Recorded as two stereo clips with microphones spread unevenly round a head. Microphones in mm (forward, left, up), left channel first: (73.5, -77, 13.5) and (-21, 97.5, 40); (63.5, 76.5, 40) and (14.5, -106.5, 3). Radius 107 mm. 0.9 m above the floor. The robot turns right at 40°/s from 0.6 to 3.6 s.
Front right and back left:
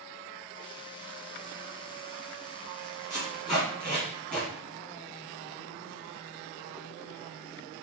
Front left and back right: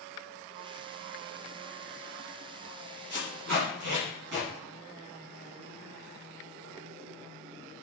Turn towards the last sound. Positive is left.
turn(degrees=-150)